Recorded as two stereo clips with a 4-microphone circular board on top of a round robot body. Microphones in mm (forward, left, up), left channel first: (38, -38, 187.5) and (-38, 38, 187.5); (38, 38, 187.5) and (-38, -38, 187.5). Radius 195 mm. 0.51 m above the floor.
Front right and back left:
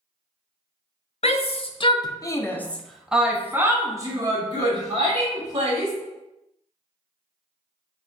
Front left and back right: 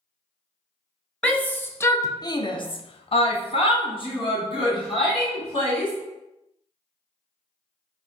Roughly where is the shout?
Ahead right.